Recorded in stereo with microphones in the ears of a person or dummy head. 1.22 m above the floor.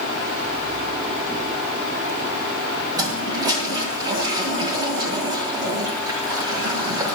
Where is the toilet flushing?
20° right (ahead or behind), 1.6 m.